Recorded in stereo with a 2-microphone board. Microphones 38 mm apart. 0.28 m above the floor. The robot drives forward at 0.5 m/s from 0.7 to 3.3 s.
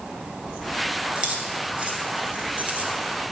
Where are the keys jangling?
25° right (ahead or behind), 2.5 m; by 3.0 s 40° right (ahead or behind), 1.7 m.